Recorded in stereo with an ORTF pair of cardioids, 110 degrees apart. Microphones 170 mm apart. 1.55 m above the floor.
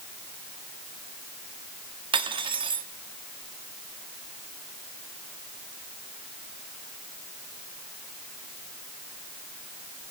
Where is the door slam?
No door slam in this recording.